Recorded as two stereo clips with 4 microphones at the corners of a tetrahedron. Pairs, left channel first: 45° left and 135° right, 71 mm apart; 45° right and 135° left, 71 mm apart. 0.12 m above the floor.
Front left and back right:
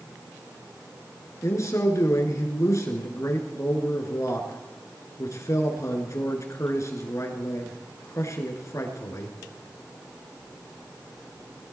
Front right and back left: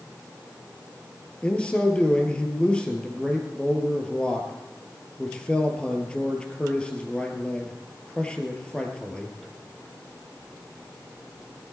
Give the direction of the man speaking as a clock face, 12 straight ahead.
11 o'clock.